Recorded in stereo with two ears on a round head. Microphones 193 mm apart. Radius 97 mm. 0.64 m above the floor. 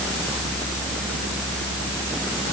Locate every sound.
Only background noise.